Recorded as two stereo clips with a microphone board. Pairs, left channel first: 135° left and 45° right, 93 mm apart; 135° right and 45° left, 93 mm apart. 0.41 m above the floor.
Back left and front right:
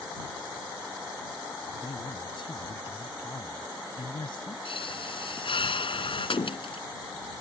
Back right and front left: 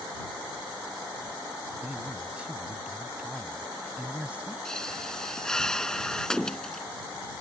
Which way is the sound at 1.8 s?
120° left.